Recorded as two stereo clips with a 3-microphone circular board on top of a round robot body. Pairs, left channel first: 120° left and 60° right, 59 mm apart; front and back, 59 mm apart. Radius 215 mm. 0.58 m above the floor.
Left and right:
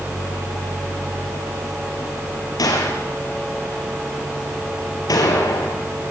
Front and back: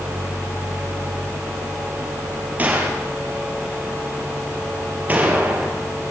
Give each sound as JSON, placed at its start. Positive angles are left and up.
{"t": 2.6, "sound": "a gunshot", "azimuth_deg": 115, "distance_m": 3.0}